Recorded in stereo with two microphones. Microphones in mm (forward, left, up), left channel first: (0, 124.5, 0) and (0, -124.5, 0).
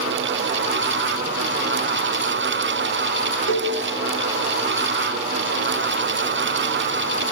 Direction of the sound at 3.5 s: 55° left (ahead or behind).